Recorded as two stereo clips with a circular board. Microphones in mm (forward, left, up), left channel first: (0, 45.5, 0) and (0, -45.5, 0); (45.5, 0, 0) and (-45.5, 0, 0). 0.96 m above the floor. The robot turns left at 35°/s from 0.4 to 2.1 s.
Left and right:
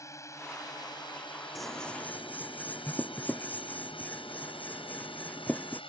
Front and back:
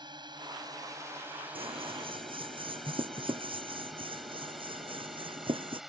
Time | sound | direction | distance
0.0 | a drone | 145° left | ?
1.6 | scissors | straight behind | ?